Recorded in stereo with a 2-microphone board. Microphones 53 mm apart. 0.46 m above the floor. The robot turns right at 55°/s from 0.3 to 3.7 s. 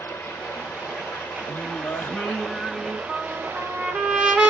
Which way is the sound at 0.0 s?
50° left.